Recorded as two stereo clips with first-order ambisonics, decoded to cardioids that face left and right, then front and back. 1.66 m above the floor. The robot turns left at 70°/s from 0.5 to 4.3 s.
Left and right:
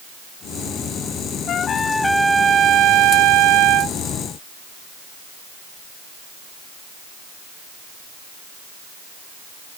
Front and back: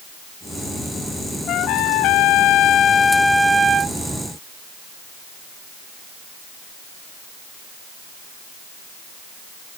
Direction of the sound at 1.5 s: 45° left.